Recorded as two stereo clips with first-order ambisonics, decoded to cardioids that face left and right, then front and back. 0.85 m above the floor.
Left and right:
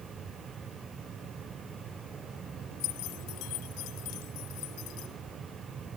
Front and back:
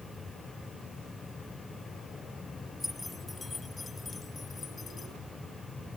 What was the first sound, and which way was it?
Keys jangling, 85° left.